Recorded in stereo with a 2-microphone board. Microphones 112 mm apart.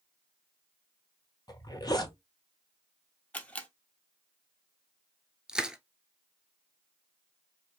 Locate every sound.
1.5 s a zipper: 35° left (ahead or behind), 1.5 m
3.3 s a camera shutter: 15° left (ahead or behind), 1.2 m
5.5 s crushing: 5° right (ahead or behind), 0.9 m